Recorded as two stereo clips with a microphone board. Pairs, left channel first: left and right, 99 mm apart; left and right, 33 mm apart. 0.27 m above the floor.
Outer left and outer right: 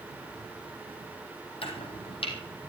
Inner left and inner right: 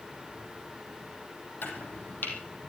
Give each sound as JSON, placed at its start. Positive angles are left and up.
{"t": 1.6, "sound": "chopping", "side_deg": 65, "distance_m": 4.0}